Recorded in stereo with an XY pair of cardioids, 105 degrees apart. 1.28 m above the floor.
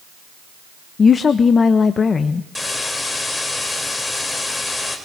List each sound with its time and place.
1.0 s a woman speaking: 40° left, 0.7 m
2.5 s a hiss: 15° left, 3.5 m